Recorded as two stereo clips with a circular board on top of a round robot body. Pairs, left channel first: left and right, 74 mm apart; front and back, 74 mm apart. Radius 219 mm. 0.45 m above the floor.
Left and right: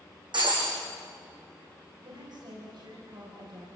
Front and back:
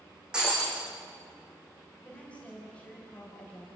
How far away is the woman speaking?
About 4.5 m.